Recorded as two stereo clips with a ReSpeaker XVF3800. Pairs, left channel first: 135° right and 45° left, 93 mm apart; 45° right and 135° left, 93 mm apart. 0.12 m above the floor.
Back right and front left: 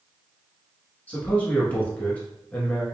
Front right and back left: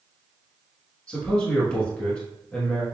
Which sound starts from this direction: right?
A man speaking, at 1.1 s.